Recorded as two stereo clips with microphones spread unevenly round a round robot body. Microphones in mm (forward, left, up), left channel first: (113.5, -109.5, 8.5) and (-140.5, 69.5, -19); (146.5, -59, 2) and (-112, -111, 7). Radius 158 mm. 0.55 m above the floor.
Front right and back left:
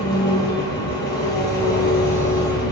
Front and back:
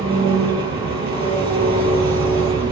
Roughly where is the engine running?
Right.